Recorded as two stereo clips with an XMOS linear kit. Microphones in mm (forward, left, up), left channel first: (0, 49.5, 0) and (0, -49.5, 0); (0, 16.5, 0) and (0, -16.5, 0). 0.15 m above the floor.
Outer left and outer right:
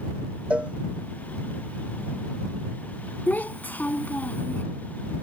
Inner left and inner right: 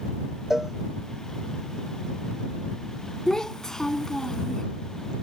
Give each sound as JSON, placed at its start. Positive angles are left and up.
{"t": 0.5, "sound": "a cowbell", "side_deg": -15}
{"t": 3.3, "sound": "a child speaking", "side_deg": 15}